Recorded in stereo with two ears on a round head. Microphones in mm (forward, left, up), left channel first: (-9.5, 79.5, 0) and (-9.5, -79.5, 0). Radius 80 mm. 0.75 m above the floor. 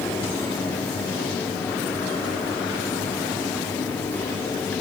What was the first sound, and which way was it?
Only background noise.